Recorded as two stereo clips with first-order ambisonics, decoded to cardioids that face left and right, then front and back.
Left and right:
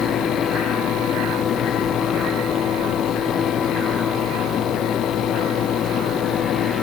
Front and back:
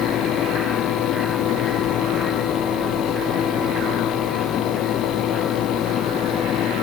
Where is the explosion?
No explosion in this recording.